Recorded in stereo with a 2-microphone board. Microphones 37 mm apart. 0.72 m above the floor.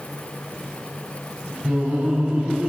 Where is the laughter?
35° right (ahead or behind), 5 m; by 2.7 s 40° right (ahead or behind), 5 m.